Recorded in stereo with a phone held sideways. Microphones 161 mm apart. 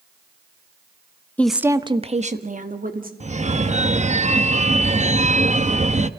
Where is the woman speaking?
10° left (ahead or behind), 0.8 m; by 3.1 s 60° right (ahead or behind), 2.5 m.